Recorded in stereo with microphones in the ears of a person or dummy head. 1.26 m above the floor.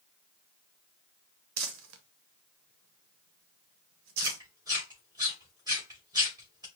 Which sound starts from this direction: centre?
Chewing, at 4.2 s.